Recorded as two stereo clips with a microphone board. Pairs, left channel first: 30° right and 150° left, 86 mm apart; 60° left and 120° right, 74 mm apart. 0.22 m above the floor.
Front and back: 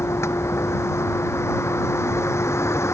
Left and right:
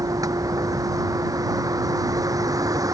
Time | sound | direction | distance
0.0 | a vehicle | 85° right | ?